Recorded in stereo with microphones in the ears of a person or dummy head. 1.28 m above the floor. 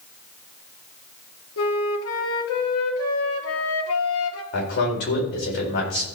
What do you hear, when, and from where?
1.6 s a flute: 70° left (ahead or behind), 1.5 m
4.5 s a man speaking: 55° left (ahead or behind), 4.5 m